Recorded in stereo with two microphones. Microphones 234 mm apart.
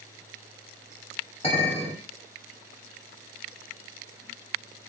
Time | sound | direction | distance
1.4 | a clink | 30° left (ahead or behind) | 1.7 m